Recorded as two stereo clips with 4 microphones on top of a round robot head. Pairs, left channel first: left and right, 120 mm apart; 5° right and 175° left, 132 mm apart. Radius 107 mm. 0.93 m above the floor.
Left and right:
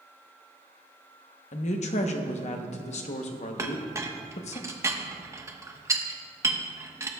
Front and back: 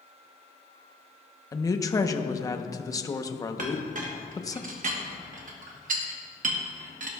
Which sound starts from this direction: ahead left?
A woman speaking, at 1.5 s.